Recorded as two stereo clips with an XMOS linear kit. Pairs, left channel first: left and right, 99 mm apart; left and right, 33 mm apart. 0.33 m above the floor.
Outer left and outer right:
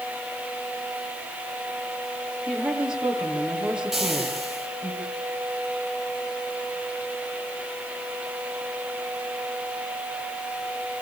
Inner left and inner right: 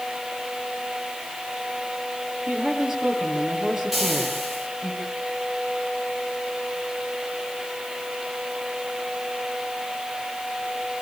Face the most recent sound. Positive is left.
turn(degrees=0)  # may be behind; listen again after turning